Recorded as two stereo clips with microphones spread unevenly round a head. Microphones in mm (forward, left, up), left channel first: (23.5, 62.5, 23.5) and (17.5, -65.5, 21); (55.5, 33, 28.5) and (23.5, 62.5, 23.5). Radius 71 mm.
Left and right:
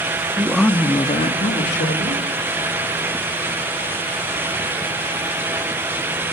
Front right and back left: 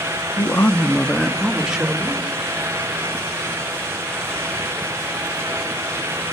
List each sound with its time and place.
0.4 s a man speaking: 15° right, 1.4 m; by 2.2 s 65° left, 3 m